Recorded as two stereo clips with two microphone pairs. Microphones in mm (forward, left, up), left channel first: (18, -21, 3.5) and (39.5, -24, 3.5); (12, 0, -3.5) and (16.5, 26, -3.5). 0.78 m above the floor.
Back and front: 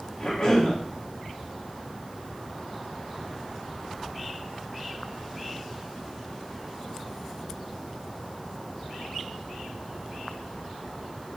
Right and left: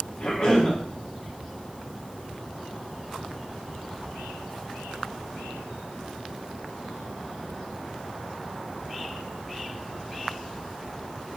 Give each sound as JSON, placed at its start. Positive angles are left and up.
{"t": 0.2, "sound": "a cough", "azimuth_deg": -135, "distance_m": 1.4}